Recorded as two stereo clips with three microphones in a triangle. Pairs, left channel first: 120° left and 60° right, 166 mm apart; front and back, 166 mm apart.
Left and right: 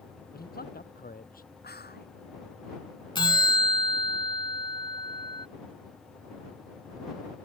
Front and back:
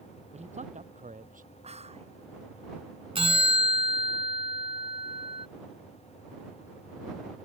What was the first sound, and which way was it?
A man speaking, 135° left.